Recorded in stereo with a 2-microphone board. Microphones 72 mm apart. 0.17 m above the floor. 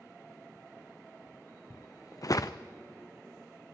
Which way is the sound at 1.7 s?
50° left (ahead or behind).